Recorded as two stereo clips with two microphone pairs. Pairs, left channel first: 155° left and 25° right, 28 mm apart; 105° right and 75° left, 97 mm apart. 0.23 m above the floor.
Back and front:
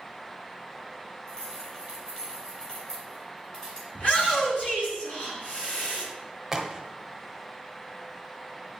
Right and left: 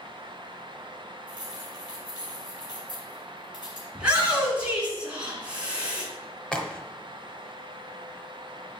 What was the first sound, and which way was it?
Keys jangling, 150° right.